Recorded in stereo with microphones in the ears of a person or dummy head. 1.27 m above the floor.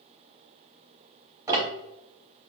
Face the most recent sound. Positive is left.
turn(degrees=-15)  # may be behind; listen again after turning